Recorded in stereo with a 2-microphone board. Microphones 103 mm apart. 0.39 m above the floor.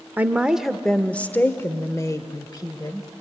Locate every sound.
0.2 s a woman speaking: 15° right (ahead or behind), 0.9 m; by 3.1 s 40° left (ahead or behind), 1.5 m